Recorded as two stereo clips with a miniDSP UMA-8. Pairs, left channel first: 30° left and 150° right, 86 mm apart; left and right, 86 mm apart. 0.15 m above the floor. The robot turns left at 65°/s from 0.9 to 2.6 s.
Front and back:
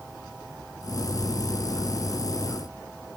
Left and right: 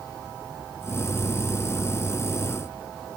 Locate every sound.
Only background noise.